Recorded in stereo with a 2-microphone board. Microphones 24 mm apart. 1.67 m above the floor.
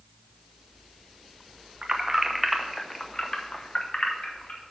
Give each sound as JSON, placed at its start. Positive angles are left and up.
{"t": 1.8, "sound": "keys jangling", "side_deg": -30, "distance_m": 0.8}